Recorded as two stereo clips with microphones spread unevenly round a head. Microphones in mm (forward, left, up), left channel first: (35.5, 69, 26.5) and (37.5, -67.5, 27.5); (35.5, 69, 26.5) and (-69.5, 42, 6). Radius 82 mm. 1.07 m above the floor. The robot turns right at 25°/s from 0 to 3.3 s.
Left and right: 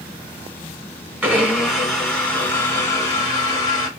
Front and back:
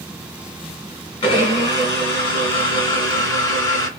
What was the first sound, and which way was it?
A blender, 15° right.